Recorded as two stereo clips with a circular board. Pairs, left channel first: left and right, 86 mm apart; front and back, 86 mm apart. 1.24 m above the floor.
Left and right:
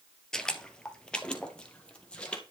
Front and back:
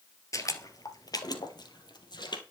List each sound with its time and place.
0.3 s footsteps: 10° left, 1.5 m; by 2.4 s 15° left, 2.5 m